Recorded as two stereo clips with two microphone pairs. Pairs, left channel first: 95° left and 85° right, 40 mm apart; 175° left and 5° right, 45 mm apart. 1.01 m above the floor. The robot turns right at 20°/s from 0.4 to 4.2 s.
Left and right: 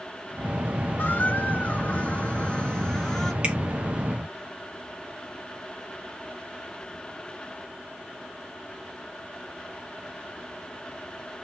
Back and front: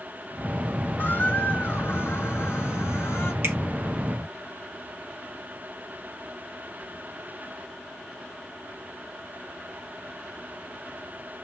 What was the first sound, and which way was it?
A squeak, 130° left.